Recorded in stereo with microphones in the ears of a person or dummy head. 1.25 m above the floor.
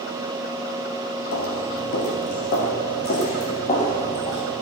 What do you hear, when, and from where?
1.3 s footsteps: 60° left (ahead or behind), 2.5 m; by 4.4 s 30° left (ahead or behind), 3.5 m